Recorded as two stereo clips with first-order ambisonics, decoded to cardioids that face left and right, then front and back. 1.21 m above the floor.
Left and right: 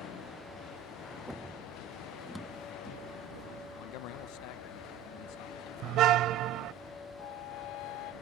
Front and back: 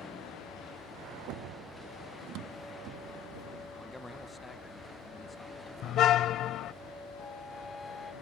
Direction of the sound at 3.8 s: 85° left.